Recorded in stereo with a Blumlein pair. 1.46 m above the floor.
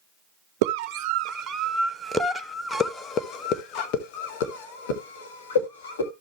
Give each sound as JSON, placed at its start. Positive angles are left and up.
{"t": 0.6, "sound": "a scream", "azimuth_deg": -45, "distance_m": 1.5}